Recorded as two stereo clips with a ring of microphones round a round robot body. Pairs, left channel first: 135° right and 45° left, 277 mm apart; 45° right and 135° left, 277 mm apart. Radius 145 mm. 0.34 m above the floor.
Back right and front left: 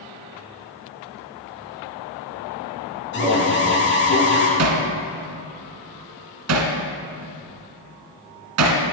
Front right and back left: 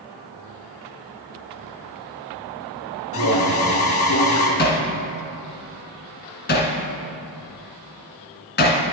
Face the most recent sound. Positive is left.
turn(degrees=10)